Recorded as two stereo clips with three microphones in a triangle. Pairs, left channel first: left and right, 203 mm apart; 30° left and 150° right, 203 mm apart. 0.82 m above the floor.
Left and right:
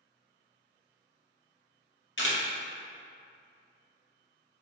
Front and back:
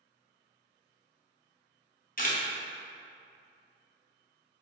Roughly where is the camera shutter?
Left.